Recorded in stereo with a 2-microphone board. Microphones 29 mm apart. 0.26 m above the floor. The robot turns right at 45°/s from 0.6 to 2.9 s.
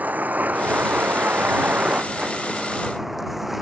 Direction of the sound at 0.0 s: 115° right.